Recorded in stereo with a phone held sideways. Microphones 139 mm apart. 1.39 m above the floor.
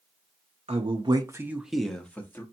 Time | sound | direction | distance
0.7 | a man speaking | 50° right (ahead or behind) | 0.6 m